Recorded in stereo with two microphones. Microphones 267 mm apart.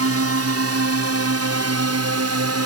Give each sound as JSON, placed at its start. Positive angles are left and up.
{"t": 0.0, "sound": "a drone", "side_deg": -60}